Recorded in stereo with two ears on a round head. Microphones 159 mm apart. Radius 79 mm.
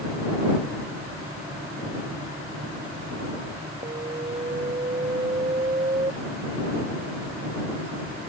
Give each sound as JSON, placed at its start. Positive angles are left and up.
{"t": 3.8, "sound": "an alarm", "side_deg": -25}